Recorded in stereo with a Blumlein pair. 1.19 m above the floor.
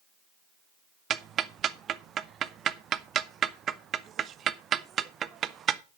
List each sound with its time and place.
1.1 s ticking: 25° right, 0.6 m